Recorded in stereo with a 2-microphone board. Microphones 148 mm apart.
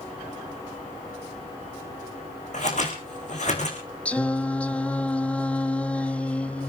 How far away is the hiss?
No hiss in this recording.